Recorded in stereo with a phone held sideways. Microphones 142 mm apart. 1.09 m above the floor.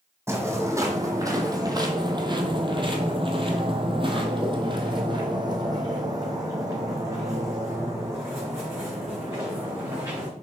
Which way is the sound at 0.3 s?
20° right (ahead or behind).